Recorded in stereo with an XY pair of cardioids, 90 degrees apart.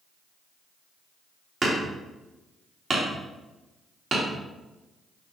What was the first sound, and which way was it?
Hammering, 35° right.